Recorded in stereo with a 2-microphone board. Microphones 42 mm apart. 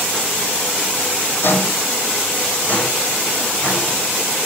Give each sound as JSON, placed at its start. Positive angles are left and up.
{"t": 1.4, "sound": "footsteps", "side_deg": 60, "distance_m": 0.9}